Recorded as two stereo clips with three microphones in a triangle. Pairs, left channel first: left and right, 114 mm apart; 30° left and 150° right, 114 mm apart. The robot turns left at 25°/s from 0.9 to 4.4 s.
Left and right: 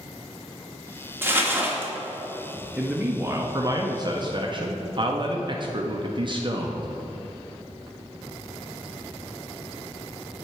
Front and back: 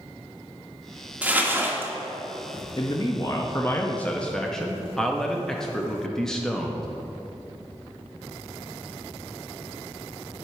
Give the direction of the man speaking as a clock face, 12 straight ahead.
12 o'clock.